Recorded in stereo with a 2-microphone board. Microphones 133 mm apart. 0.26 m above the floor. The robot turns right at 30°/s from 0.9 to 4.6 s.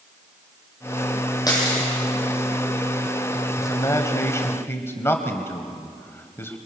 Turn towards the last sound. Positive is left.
turn(degrees=20)  # may be behind; listen again after turning